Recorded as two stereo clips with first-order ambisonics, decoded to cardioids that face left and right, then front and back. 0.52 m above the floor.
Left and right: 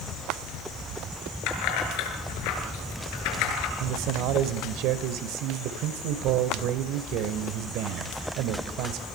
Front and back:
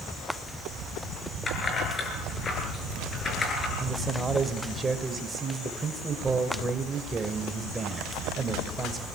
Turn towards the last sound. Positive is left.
turn(degrees=-110)